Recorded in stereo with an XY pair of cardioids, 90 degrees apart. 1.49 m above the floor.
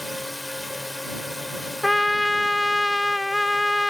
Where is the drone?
15° left.